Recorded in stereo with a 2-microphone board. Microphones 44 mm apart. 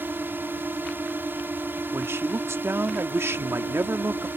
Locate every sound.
0.0 s a drone: 55° right (ahead or behind)
1.9 s a man speaking: 80° right